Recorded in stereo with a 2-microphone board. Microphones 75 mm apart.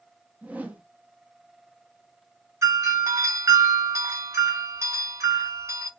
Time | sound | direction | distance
0.4 | a whoosh | 20° right (ahead or behind) | 0.7 m
2.6 | a doorbell | 40° right (ahead or behind) | 1.5 m